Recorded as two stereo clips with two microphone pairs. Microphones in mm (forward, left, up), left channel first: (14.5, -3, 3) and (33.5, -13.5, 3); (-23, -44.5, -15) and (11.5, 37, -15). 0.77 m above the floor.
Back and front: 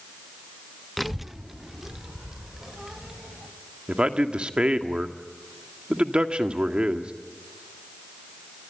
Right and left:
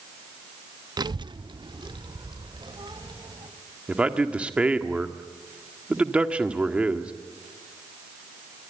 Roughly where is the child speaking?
Ahead left.